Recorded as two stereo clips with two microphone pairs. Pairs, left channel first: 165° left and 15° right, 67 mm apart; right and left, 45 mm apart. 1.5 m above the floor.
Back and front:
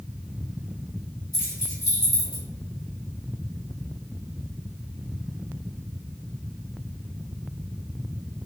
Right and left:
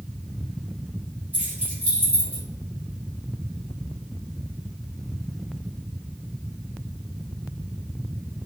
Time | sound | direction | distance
1.3 | keys jangling | 140° left | 1.9 m